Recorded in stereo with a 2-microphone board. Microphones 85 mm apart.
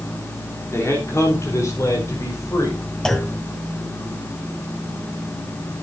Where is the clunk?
5° left (ahead or behind), 1.3 m.